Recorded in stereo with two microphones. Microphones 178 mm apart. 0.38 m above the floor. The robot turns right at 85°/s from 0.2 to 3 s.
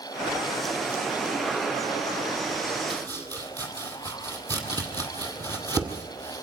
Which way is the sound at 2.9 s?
30° right (ahead or behind).